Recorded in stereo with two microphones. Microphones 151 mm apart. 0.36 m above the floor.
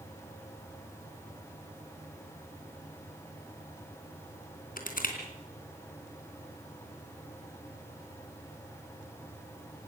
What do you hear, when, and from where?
4.8 s crushing: 70° left (ahead or behind), 3.5 m